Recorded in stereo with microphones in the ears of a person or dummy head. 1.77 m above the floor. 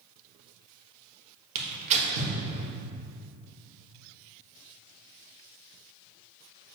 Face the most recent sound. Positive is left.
turn(degrees=-40)  # may be behind; listen again after turning